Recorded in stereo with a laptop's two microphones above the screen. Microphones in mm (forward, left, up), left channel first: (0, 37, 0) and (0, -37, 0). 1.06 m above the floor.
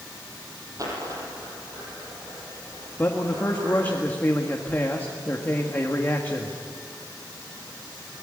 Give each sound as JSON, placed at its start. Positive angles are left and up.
{"t": 0.8, "sound": "a dropped coin", "side_deg": -45, "distance_m": 5.5}
{"t": 3.0, "sound": "a man speaking", "side_deg": 25, "distance_m": 1.6}